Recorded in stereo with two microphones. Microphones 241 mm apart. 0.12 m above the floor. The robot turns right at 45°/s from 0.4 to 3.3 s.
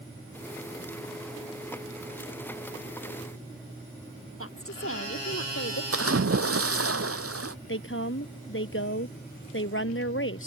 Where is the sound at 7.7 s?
60° left (ahead or behind).